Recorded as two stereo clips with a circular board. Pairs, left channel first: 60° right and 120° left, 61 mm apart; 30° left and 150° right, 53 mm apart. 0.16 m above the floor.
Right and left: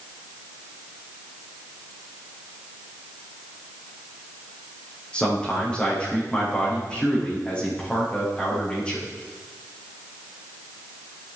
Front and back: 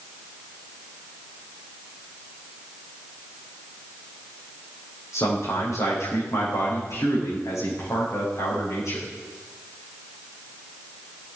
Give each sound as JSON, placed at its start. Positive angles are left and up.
{"t": 5.1, "sound": "a man speaking", "azimuth_deg": 10, "distance_m": 9.0}